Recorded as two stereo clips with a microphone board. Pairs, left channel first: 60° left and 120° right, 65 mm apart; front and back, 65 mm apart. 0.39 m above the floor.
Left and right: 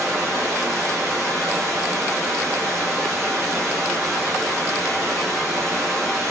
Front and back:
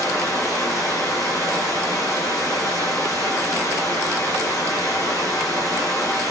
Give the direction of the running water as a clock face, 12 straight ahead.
1 o'clock.